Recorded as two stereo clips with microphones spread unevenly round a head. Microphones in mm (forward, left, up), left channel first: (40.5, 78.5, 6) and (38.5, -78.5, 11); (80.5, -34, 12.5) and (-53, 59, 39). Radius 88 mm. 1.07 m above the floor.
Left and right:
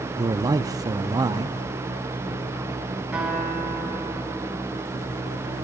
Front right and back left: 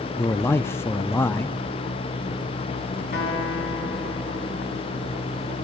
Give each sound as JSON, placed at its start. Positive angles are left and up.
{"t": 0.2, "sound": "a man speaking", "azimuth_deg": -55, "distance_m": 0.7}
{"t": 3.1, "sound": "a guitar", "azimuth_deg": -5, "distance_m": 5.5}